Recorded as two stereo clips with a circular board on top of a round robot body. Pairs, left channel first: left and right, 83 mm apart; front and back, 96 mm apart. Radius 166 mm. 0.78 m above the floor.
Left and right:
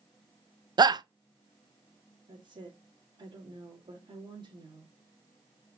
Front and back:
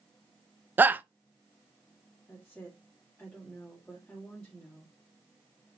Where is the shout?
110° right, 0.6 m.